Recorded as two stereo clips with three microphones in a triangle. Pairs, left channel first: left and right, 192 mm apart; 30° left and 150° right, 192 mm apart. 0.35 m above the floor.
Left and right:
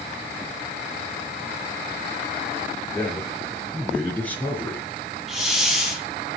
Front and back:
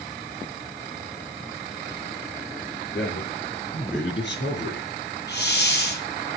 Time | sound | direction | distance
2.9 | a man speaking | 5° left | 6.5 m
5.3 | a hiss | straight ahead | 4 m